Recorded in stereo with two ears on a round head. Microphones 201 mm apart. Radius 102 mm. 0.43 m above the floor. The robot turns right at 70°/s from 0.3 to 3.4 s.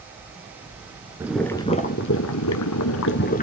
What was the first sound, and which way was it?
Boiling, 10° right.